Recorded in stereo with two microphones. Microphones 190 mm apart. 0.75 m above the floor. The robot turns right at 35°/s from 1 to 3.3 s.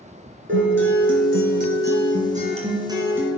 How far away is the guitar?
About 2.5 m.